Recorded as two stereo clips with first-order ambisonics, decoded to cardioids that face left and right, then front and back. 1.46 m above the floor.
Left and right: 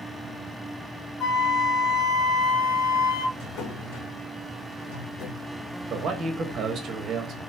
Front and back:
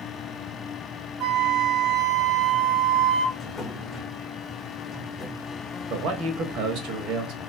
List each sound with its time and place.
1.2 s a flute: 150° left, 2 m
3.4 s a drawer: 85° left, 1.3 m
5.9 s a man speaking: 150° right, 1.5 m